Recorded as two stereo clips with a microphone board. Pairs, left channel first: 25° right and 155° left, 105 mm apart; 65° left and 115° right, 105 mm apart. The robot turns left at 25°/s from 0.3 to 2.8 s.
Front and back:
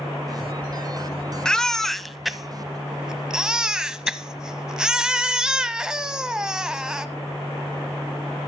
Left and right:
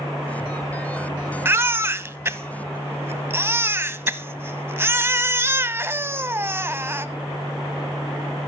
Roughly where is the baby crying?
Right.